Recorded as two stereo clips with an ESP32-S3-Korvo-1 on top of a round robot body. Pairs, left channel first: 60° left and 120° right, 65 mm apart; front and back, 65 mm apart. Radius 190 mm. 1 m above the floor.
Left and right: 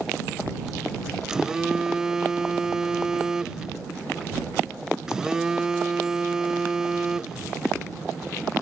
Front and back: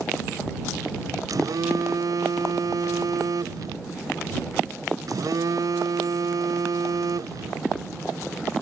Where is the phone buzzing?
160° left.